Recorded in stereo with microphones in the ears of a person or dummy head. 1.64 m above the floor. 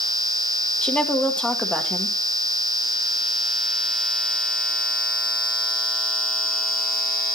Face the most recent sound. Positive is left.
turn(degrees=10)  # may be behind; listen again after turning